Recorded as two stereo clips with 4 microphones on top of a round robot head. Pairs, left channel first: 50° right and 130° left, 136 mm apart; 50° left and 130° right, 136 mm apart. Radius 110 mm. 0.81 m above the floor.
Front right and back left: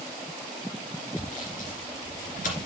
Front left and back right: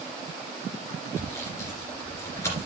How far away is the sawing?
About 2.5 m.